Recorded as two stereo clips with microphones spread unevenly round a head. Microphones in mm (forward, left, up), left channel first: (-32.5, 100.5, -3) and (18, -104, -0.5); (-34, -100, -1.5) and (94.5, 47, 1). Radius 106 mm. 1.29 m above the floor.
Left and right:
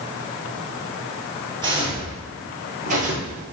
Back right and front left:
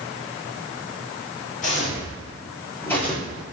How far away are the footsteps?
About 1.6 m.